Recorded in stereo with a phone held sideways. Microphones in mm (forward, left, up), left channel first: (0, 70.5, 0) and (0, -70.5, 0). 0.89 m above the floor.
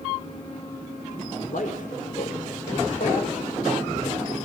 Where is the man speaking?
70° left (ahead or behind), 3.5 m; by 4.4 s 80° left, 6 m.